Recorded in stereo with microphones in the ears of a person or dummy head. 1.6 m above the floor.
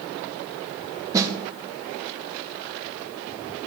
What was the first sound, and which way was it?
A snare drum, 20° right (ahead or behind).